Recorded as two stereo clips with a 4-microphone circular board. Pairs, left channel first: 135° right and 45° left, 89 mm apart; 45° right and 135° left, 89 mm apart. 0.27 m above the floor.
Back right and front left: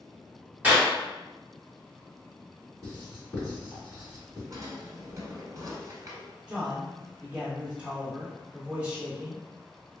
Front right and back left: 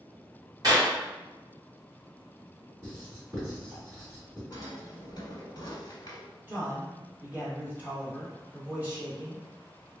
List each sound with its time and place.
0.6 s a clap: 110° left, 1.7 m
2.8 s writing: 85° left, 1.7 m
4.5 s a drawer: 5° right, 0.9 m
6.5 s a man speaking: 95° left, 1.2 m